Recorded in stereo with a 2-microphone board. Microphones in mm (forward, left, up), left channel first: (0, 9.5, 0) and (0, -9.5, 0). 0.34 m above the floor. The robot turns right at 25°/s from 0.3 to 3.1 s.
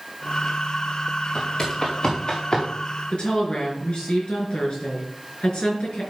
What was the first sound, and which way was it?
Footsteps, 40° left (ahead or behind).